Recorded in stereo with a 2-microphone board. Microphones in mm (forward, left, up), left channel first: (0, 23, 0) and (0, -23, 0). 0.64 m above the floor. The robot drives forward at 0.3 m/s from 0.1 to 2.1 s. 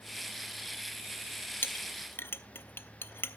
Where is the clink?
50° left (ahead or behind), 1.1 m; by 3.4 s 60° left (ahead or behind), 1.0 m.